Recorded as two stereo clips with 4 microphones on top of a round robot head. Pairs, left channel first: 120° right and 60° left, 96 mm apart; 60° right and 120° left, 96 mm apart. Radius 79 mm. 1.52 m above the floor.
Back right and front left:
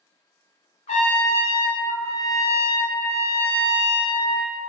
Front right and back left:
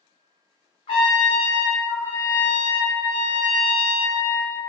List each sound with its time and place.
0.9 s a trumpet: 95° right, 0.7 m